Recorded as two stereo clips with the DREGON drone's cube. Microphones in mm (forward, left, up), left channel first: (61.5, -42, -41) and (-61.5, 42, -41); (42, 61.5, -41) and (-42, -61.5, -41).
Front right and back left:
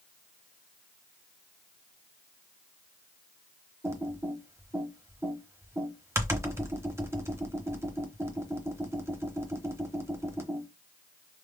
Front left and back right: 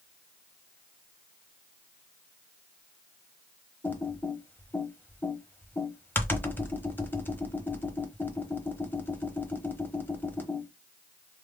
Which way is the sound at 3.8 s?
110° left.